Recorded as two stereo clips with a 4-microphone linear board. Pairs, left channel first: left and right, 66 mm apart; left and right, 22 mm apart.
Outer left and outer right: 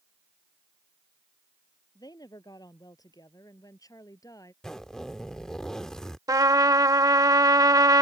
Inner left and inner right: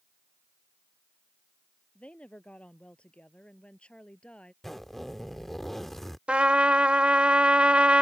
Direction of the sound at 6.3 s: 65° right (ahead or behind).